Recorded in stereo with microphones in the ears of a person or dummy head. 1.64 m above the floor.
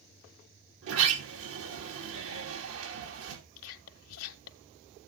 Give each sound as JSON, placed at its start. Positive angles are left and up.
{"t": 0.8, "sound": "a sliding door", "side_deg": -75, "distance_m": 3.0}
{"t": 3.6, "sound": "whispering", "side_deg": 85, "distance_m": 1.6}